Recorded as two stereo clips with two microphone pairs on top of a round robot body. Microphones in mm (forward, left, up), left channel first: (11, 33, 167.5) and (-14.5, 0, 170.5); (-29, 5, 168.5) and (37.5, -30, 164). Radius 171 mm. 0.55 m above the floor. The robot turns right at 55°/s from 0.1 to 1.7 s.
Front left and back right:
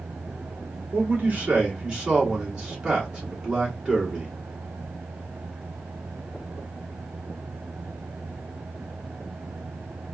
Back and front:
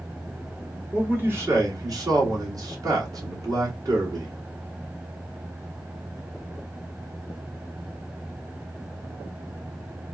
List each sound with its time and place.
0.9 s a man speaking: 100° right, 2.0 m; by 4.3 s 60° right, 2.0 m